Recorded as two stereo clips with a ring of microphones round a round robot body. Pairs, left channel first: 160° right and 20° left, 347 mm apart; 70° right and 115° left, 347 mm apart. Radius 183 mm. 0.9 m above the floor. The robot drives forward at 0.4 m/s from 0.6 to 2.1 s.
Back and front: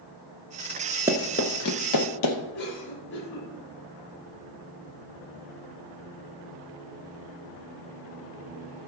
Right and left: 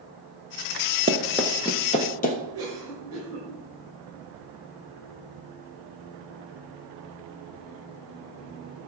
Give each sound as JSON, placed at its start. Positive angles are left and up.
{"t": 1.1, "sound": "running footsteps", "azimuth_deg": 90, "distance_m": 0.8}
{"t": 2.5, "sound": "a cough", "azimuth_deg": 160, "distance_m": 5.5}